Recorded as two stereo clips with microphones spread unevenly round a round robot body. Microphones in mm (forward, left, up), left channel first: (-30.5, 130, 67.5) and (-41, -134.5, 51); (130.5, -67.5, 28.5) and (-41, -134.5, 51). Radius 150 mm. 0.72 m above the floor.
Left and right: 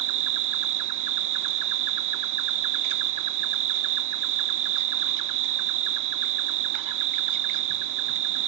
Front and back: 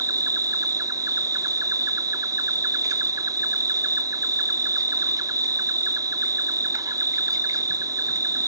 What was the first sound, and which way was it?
An insect, 85° right.